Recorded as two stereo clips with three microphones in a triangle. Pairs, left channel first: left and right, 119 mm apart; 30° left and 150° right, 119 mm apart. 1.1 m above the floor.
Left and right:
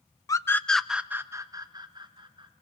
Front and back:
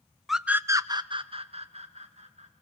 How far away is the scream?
About 0.7 m.